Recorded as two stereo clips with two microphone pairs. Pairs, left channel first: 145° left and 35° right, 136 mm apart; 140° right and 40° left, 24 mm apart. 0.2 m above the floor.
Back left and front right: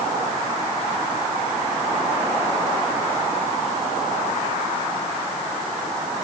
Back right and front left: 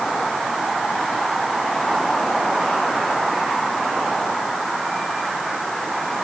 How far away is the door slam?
No door slam in this recording.